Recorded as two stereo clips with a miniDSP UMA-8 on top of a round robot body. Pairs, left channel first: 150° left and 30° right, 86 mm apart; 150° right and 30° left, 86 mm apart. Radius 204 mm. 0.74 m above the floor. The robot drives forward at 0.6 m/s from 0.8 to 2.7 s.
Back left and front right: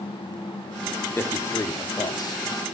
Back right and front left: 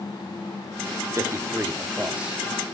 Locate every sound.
1.2 s a man speaking: 85° left, 1.7 m; by 2.8 s 115° left, 1.8 m